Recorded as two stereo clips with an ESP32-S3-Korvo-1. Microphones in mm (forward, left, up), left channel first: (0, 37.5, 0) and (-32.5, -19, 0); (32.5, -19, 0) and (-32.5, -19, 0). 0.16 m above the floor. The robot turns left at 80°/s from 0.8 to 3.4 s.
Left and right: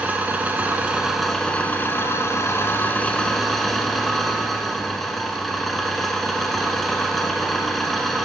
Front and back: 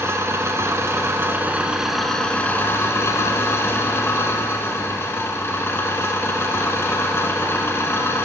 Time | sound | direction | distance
0.0 | an engine running | 175° right | 1.2 m